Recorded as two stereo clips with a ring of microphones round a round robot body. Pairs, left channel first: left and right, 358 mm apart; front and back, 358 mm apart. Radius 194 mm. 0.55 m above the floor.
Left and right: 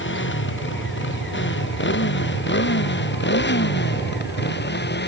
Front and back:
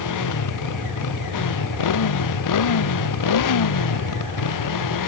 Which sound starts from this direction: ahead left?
A motorcycle, at 0.0 s.